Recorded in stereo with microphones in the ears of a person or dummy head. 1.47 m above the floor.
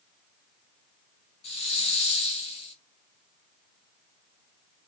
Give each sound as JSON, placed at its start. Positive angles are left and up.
{"t": 1.4, "sound": "a hiss", "side_deg": 35, "distance_m": 3.0}